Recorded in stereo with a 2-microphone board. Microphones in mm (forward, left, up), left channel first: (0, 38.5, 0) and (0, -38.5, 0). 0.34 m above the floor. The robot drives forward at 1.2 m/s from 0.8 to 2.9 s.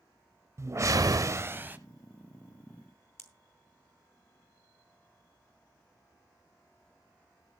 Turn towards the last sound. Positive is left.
turn(degrees=35)  # may be behind; listen again after turning